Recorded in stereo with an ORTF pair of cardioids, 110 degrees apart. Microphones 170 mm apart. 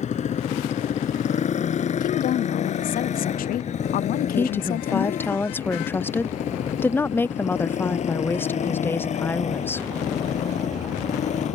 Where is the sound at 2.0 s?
60° left.